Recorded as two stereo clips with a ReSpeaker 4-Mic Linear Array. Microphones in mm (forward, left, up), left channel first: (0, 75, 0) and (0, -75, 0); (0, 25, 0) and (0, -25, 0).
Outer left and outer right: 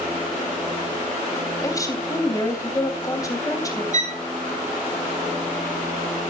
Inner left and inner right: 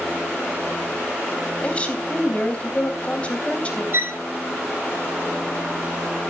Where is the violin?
55° right (ahead or behind), 3 m.